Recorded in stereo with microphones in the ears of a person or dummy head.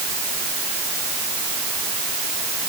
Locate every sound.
Only background noise.